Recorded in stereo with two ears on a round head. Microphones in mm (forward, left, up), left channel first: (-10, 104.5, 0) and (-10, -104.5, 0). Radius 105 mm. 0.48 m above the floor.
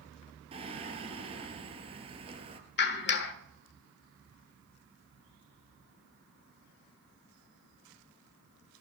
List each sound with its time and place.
0.5 s singing: 25° right (ahead or behind), 1.8 m
2.8 s a clap: 50° left (ahead or behind), 1.5 m